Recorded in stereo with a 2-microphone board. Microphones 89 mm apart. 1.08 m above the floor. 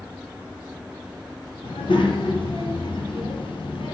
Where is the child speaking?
70° left (ahead or behind), 0.7 m.